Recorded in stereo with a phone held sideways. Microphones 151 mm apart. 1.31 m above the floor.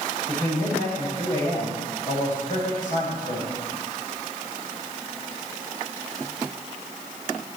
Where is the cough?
No cough in this recording.